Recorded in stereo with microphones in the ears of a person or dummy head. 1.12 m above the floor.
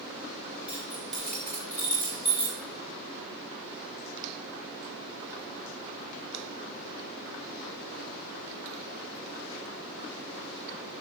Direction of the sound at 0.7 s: 5° right (ahead or behind).